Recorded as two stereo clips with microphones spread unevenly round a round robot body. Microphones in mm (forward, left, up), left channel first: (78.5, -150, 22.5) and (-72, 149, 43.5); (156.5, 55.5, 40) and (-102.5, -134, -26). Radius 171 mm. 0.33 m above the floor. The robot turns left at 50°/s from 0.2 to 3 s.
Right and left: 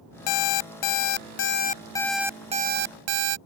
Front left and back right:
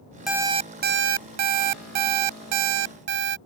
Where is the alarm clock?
60° right; by 3.4 s 165° left.